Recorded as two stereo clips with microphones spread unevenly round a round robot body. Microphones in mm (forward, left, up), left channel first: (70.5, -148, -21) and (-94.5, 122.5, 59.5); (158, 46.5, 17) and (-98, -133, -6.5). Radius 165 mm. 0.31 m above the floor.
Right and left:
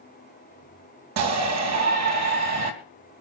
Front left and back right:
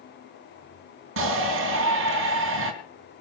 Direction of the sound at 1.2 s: 165° left.